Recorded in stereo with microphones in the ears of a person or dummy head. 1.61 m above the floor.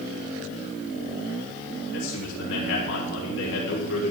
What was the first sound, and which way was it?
A man speaking, 75° left (ahead or behind).